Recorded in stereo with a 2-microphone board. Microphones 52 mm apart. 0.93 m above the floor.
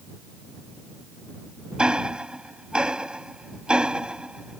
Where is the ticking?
20° right (ahead or behind).